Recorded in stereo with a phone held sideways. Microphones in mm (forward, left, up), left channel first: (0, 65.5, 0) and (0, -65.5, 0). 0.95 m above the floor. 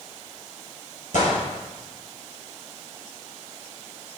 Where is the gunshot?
80° left, 4 m.